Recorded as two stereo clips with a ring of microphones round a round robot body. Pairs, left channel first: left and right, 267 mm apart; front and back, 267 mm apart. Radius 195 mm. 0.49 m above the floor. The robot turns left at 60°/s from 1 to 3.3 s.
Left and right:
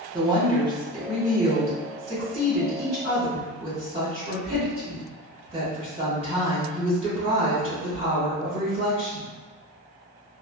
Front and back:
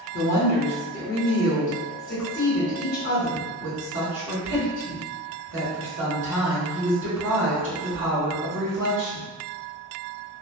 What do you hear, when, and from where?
0.1 s a woman speaking: 20° right, 1.4 m; by 9.3 s 155° right, 1.4 m